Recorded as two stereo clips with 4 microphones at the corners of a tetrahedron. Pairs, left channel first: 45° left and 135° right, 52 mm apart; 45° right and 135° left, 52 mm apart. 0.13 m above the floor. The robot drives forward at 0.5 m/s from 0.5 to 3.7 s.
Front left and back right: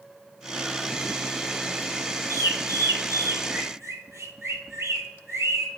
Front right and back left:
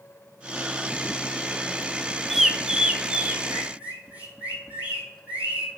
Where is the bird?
135° right, 0.6 m; by 5.8 s 160° right, 1.2 m.